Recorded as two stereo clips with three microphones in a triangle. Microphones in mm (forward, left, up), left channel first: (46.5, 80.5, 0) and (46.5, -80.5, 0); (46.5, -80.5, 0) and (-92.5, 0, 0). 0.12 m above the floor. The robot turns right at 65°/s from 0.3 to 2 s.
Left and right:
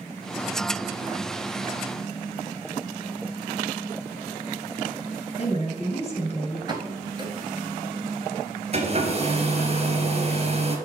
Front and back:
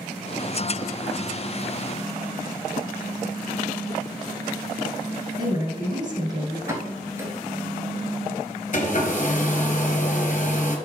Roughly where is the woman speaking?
Left.